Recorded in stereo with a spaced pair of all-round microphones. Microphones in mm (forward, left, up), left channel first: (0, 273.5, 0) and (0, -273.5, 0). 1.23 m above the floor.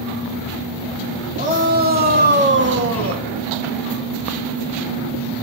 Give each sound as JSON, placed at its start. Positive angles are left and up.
{"t": 1.4, "sound": "a shout", "side_deg": -15, "distance_m": 3.5}